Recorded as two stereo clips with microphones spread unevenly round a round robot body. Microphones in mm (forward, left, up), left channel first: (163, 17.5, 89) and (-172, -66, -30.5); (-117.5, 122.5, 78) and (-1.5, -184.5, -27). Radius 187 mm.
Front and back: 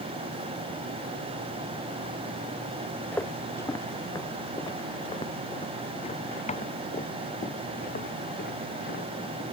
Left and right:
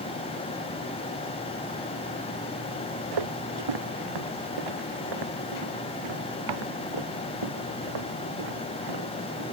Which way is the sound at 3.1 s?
70° right.